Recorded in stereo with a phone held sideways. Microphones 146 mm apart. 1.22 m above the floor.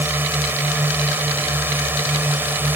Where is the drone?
15° right (ahead or behind).